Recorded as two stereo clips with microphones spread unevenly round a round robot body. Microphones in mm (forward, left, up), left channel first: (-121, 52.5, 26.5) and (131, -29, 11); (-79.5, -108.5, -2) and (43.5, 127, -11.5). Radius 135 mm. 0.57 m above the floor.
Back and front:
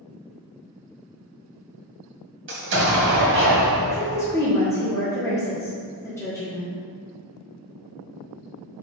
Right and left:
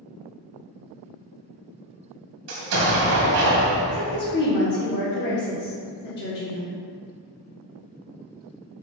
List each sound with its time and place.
2.5 s an explosion: 25° left, 1.7 m
3.9 s a woman speaking: 120° right, 1.3 m